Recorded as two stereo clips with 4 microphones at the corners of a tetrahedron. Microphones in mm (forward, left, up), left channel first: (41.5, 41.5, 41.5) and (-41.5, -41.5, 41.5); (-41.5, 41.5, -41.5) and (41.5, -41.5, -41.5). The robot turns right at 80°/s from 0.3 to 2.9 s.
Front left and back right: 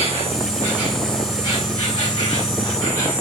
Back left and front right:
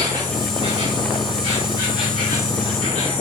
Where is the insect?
95° right, 3.5 m; by 3.2 s 110° left, 3.5 m.